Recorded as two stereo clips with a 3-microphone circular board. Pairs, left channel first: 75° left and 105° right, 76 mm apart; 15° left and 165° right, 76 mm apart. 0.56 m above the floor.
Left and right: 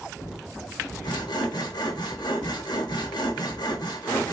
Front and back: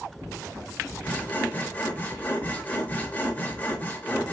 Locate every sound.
1.0 s sawing: 85° left, 0.8 m